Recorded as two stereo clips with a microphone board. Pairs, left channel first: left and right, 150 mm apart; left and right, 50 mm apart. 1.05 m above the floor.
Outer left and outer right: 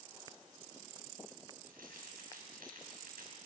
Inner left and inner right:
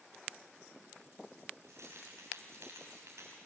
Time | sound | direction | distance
1.6 | keys jangling | 80° right | 5.5 m